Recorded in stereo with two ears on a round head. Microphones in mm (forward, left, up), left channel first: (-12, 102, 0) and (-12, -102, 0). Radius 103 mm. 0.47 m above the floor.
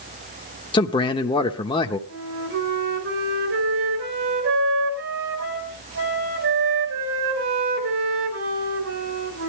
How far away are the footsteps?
No footsteps in this recording.